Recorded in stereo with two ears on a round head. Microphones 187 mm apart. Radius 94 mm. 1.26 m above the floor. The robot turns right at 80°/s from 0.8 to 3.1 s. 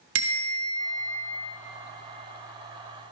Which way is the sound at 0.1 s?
65° right (ahead or behind).